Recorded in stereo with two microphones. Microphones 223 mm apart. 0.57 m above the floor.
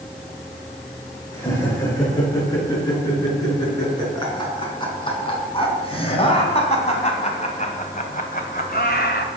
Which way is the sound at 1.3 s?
15° left (ahead or behind).